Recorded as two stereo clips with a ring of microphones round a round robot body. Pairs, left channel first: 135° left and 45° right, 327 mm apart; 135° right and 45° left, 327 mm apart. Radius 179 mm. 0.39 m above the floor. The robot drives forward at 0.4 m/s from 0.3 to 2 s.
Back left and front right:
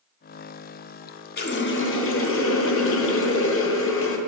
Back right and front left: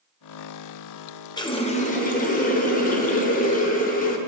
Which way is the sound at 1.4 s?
160° left.